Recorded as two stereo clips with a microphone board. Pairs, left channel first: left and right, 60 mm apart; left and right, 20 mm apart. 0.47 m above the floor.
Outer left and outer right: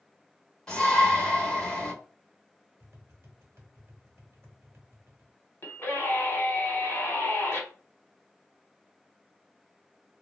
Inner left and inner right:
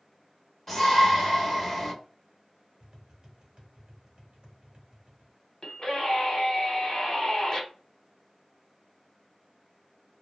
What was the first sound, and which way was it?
A shout, 10° left (ahead or behind).